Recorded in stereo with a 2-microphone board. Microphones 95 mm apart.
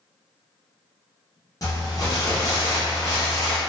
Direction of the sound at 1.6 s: 40° left (ahead or behind).